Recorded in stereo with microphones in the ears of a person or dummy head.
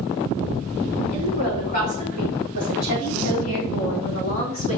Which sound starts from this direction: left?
A woman speaking, at 1.1 s.